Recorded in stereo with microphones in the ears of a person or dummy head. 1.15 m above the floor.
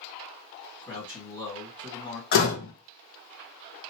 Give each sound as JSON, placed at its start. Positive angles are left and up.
{"t": 0.8, "sound": "a man speaking", "side_deg": 15, "distance_m": 2.0}
{"t": 2.3, "sound": "a door slam", "side_deg": 55, "distance_m": 0.9}